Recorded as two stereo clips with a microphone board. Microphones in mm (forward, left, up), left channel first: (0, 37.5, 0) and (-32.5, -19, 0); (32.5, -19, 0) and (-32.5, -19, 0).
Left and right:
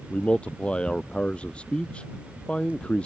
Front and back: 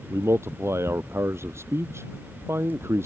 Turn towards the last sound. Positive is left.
turn(degrees=135)